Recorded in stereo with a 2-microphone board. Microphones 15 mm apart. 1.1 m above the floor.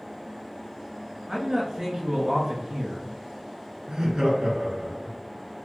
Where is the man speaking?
40° right (ahead or behind), 1.7 m.